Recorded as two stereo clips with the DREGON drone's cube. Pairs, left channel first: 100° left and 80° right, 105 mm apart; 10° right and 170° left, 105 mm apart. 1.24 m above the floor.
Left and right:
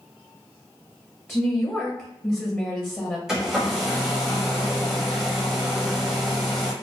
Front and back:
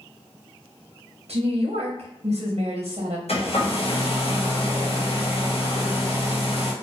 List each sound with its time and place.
1.3 s a woman speaking: 165° left, 1.0 m
3.3 s a hair dryer: 5° left, 1.2 m